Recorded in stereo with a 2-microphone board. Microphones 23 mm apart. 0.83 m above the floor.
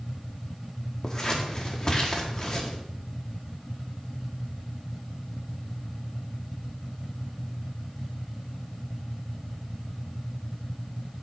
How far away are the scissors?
About 1.7 m.